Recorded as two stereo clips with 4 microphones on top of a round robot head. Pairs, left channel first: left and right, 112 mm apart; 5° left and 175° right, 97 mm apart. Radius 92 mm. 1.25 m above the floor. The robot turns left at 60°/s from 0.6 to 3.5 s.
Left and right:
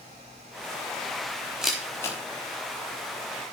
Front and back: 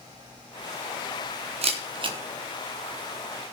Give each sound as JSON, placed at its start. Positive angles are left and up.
{"t": 1.6, "sound": "a camera shutter", "azimuth_deg": -175, "distance_m": 4.0}